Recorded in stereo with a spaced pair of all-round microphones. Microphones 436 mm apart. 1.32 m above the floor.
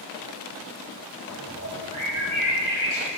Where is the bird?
40° right (ahead or behind), 3 m.